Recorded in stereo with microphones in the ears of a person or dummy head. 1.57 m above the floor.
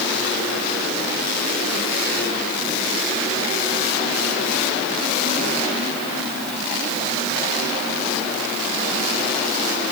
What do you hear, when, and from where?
Only background noise.